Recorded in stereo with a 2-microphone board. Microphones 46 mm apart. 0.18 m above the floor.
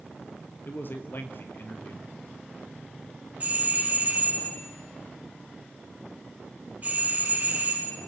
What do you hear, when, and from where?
0.7 s a man speaking: 50° left (ahead or behind), 3 m
3.4 s a doorbell: 35° right (ahead or behind), 6.5 m